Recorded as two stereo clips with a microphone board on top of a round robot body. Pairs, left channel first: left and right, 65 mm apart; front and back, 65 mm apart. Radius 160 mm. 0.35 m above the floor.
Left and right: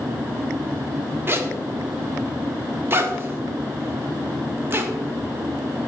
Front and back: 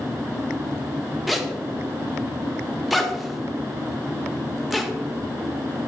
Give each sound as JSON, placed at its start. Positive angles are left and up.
{"t": 1.3, "sound": "a zipper", "azimuth_deg": -95, "distance_m": 1.3}